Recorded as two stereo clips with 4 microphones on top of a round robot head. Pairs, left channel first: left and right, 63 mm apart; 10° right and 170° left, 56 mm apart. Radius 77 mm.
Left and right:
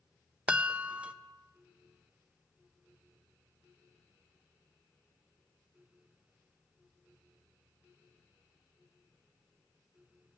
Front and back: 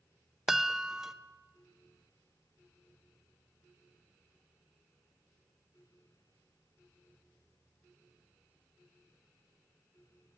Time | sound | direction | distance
0.5 | a chime | 115° right | 0.5 m